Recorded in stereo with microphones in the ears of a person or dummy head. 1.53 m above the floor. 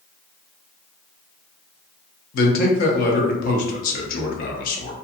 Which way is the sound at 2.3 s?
50° left (ahead or behind).